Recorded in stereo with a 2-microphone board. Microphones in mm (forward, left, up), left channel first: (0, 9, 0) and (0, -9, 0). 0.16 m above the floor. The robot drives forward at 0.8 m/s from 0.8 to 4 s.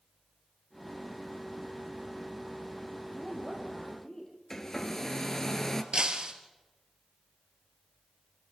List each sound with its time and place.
3.1 s a woman speaking: 40° left (ahead or behind), 5.5 m; by 4.3 s 35° left (ahead or behind), 6 m
4.5 s a hair dryer: 25° left (ahead or behind), 1.5 m
5.9 s breaking glass: 50° right (ahead or behind), 2 m